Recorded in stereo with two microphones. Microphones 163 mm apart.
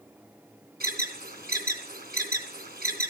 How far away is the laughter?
I don't hear laughter.